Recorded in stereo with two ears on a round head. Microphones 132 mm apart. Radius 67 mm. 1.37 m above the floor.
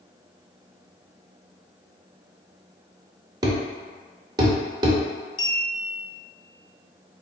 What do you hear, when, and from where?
3.4 s a thud: 25° right (ahead or behind), 0.7 m
5.4 s a clink: 30° left (ahead or behind), 0.8 m